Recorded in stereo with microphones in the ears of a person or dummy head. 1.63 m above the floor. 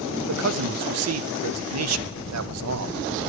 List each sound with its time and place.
0.3 s a man speaking: 85° right, 0.6 m